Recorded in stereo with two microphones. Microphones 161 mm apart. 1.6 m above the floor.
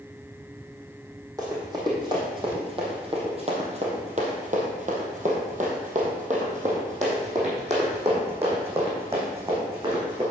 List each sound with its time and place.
1.4 s running footsteps: 25° right (ahead or behind), 3.5 m; by 10.2 s 35° right (ahead or behind), 5 m